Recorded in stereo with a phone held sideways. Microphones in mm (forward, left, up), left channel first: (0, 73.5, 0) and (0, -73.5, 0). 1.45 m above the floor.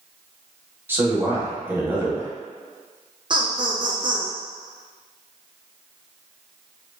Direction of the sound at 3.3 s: 35° right (ahead or behind).